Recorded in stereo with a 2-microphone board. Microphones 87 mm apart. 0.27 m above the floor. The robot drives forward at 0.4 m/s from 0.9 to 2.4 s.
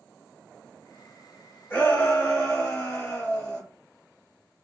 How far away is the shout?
About 1.0 m.